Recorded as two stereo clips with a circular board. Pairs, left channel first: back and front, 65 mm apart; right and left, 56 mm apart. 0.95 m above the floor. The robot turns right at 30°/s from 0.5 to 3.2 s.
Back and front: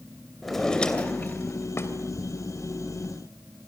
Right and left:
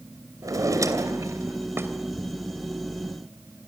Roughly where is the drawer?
Left.